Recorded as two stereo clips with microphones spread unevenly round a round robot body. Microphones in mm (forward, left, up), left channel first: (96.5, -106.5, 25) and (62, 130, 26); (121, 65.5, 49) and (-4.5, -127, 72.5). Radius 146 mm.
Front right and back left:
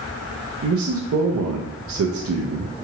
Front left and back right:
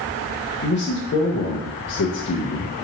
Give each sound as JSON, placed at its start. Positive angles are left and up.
{"t": 0.6, "sound": "a man speaking", "azimuth_deg": 80, "distance_m": 0.5}